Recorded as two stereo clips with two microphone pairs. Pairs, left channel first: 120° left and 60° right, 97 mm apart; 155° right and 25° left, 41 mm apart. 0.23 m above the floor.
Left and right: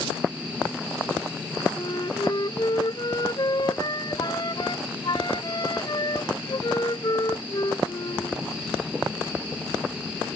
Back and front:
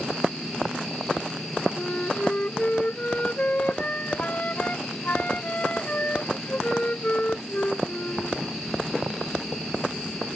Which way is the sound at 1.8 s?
155° left.